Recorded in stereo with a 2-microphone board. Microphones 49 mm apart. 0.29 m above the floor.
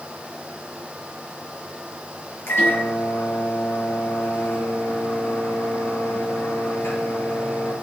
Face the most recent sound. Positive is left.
turn(degrees=55)  # may be behind; listen again after turning